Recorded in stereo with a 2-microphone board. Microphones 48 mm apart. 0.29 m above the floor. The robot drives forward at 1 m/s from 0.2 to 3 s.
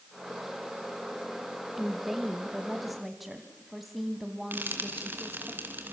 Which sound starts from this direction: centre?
A woman speaking, at 1.8 s.